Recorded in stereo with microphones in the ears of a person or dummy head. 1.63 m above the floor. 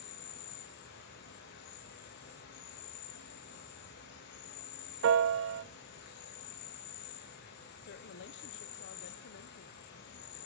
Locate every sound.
0.0 s an insect: 65° left (ahead or behind), 2.5 m
5.0 s a piano: 75° right (ahead or behind), 0.7 m
7.8 s a woman speaking: 60° left (ahead or behind), 0.7 m